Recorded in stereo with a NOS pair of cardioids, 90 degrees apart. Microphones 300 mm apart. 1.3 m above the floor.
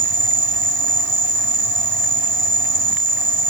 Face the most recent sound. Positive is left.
turn(degrees=-40)